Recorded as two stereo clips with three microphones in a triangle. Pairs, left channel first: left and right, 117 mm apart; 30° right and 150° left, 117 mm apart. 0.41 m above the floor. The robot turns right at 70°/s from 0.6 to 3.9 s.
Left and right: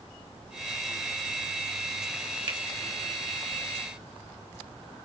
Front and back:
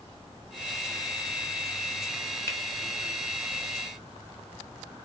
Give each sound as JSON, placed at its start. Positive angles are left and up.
{"t": 2.5, "sound": "a finger snap", "azimuth_deg": -90, "distance_m": 1.0}